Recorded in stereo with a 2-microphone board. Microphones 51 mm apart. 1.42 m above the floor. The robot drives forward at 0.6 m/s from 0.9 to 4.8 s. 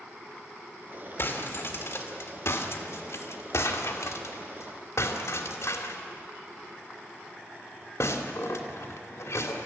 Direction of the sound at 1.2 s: 55° left (ahead or behind).